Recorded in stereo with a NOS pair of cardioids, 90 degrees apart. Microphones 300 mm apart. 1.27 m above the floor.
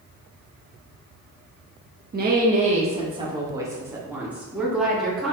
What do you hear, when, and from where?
2.1 s a woman speaking: 35° right, 1.7 m; by 5.3 s straight ahead, 3.5 m